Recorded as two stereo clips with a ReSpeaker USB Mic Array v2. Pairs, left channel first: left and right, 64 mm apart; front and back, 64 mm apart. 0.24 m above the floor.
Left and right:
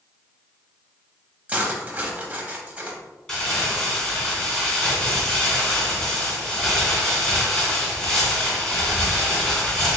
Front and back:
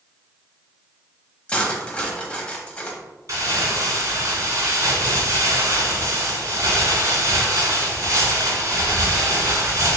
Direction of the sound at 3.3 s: 170° left.